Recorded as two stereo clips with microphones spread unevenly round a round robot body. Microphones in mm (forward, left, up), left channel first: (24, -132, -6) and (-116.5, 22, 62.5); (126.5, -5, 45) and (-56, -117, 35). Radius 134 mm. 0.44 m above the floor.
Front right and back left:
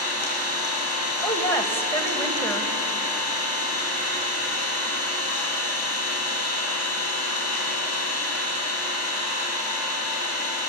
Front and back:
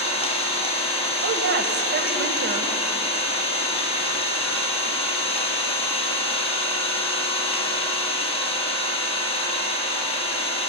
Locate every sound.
0.0 s an engine running: 30° right, 5 m
1.2 s a woman speaking: 120° right, 2.5 m